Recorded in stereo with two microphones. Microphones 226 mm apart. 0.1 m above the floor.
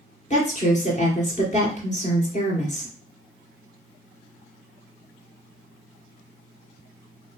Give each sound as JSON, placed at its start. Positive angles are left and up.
{"t": 0.3, "sound": "a woman speaking", "side_deg": 35, "distance_m": 2.0}